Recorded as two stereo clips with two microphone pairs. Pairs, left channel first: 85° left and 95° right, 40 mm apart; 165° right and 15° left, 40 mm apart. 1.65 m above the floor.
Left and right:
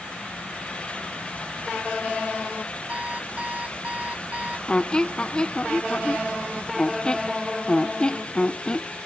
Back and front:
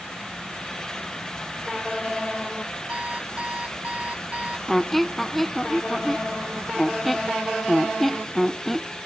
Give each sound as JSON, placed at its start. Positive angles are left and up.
{"t": 2.9, "sound": "an alarm clock", "azimuth_deg": -40}
{"t": 4.7, "sound": "a squeak", "azimuth_deg": 115}